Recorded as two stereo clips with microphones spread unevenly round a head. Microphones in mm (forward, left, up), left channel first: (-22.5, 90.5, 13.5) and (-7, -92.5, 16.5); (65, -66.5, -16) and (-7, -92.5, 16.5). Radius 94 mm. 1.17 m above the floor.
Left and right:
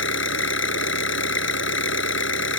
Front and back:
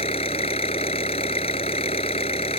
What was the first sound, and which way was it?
An engine running, 65° left.